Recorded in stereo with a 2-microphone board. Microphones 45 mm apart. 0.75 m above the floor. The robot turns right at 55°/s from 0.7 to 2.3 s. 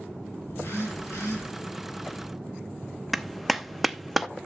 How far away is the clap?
About 0.5 m.